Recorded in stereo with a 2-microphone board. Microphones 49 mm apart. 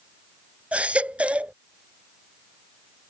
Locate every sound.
0.7 s a baby crying: 25° right (ahead or behind)